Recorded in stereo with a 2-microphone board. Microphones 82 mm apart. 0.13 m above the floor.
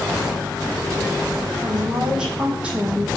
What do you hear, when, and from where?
1.6 s a woman speaking: 5° right (ahead or behind), 5.5 m; by 3.1 s 15° right (ahead or behind), 4.5 m